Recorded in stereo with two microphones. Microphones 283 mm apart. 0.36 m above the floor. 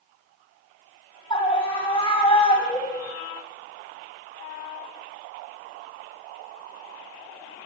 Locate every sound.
1.3 s a scream: 20° left (ahead or behind), 2 m